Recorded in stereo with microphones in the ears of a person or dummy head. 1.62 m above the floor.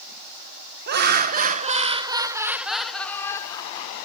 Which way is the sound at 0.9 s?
55° right (ahead or behind).